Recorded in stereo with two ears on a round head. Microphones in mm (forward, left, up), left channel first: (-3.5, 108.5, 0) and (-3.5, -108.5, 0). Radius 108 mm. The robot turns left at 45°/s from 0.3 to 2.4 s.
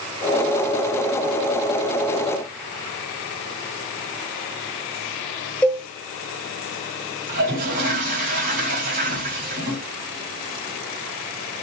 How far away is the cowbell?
About 0.5 m.